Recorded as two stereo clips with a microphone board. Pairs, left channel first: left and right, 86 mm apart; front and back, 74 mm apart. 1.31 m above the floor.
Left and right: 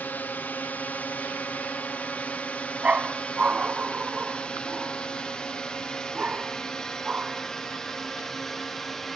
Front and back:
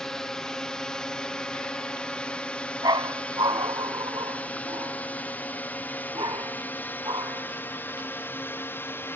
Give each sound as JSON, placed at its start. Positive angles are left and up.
{"t": 0.0, "sound": "a drone", "azimuth_deg": 70}
{"t": 2.8, "sound": "a dog barking", "azimuth_deg": -165}